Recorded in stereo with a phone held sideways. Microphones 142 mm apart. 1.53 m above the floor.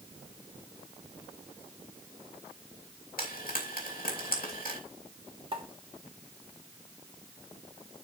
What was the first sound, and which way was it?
Frying, 75° left (ahead or behind).